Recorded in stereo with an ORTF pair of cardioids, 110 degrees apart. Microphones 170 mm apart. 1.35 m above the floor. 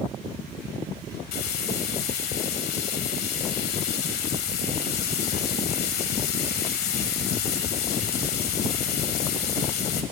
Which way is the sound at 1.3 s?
65° left.